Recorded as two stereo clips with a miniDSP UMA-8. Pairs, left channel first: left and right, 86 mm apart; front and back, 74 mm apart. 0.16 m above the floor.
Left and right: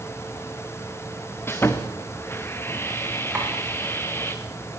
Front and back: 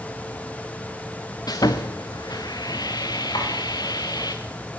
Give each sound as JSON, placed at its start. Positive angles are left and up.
{"t": 1.5, "sound": "sawing", "azimuth_deg": 25, "distance_m": 2.5}
{"t": 3.4, "sound": "tapping", "azimuth_deg": -15, "distance_m": 8.5}